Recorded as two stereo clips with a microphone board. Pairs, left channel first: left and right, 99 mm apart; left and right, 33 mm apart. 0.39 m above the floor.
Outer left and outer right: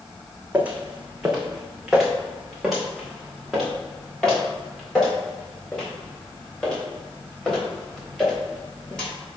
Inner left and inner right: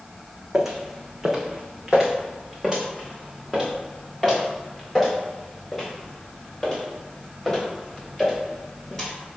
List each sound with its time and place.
0.5 s footsteps: 15° right (ahead or behind), 1.3 m; by 9.1 s 10° left (ahead or behind), 6 m